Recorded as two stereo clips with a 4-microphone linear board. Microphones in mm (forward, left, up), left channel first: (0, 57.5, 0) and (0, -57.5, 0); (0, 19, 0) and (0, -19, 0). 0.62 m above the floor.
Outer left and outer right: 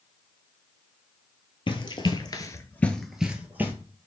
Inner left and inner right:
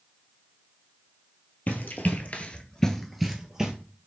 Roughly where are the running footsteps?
Left.